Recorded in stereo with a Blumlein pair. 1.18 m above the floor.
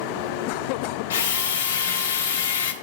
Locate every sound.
1.1 s a drill: 60° left, 0.7 m